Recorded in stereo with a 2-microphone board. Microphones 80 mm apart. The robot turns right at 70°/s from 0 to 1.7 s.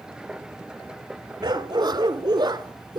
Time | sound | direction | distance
1.4 | a dog barking | 60° right (ahead or behind) | 1.0 m